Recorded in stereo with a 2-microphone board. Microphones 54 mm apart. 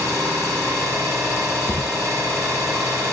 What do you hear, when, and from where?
0.0 s an engine running: 75° right (ahead or behind), 8 m
1.7 s a thud: 50° left (ahead or behind), 2 m